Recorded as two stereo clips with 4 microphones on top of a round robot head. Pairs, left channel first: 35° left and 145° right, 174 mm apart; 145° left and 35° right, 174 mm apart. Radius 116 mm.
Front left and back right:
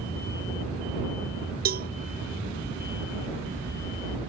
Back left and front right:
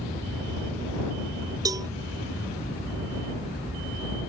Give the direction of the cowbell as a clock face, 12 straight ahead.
4 o'clock.